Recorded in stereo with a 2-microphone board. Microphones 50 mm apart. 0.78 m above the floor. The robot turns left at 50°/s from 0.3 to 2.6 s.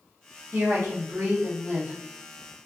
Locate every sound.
0.5 s a woman speaking: 65° right, 0.9 m; by 1.9 s 135° right, 0.9 m